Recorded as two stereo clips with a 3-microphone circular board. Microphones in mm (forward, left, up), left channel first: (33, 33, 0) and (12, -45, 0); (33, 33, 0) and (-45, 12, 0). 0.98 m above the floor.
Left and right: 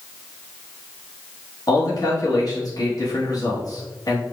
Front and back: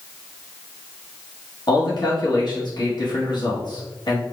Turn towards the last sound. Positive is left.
turn(degrees=35)